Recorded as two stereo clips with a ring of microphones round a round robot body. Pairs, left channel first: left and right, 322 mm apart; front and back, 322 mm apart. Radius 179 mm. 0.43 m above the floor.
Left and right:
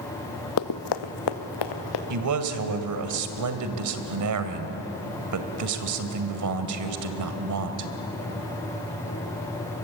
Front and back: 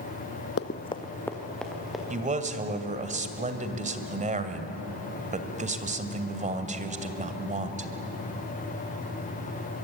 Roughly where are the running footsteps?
Ahead left.